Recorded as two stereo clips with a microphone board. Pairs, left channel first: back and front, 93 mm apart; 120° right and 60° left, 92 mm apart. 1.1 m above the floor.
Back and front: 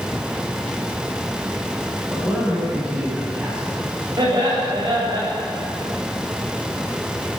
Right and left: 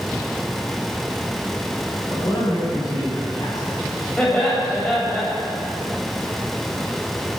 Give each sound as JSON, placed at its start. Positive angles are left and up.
{"t": 2.1, "sound": "a man speaking", "azimuth_deg": -75, "distance_m": 8.0}
{"t": 4.2, "sound": "laughter", "azimuth_deg": -45, "distance_m": 7.5}